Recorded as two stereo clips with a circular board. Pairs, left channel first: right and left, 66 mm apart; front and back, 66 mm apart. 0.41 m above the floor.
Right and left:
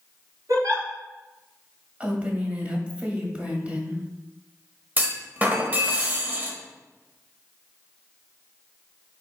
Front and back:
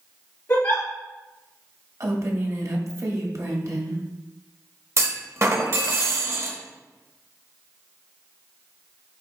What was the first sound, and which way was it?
A giggle, 55° left.